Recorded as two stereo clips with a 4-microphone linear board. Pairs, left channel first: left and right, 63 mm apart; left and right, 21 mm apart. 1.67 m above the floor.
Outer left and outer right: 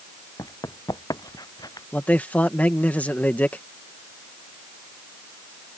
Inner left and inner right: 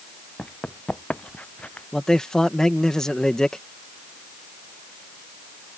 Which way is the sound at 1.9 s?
25° left (ahead or behind).